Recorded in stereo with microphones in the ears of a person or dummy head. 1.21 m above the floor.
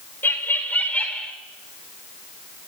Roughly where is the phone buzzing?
I don't hear a phone buzzing.